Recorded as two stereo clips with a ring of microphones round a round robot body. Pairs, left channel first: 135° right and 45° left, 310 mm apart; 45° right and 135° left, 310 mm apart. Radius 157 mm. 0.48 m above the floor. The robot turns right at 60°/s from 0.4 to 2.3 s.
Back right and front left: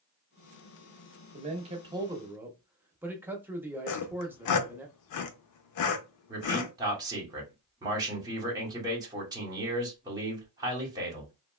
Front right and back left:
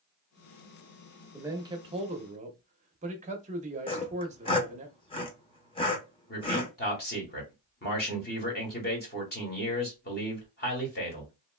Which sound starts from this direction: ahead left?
A man speaking, at 1.3 s.